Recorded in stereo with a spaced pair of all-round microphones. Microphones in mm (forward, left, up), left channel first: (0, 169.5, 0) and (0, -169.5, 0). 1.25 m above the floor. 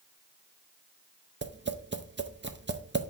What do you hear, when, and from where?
1.4 s tapping: 35° right (ahead or behind), 0.6 m